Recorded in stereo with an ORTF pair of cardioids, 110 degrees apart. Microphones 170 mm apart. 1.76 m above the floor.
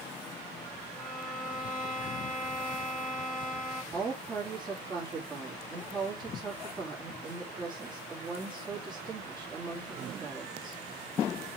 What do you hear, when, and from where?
0.9 s a violin: straight ahead, 3 m
3.9 s a woman speaking: 25° right, 3.5 m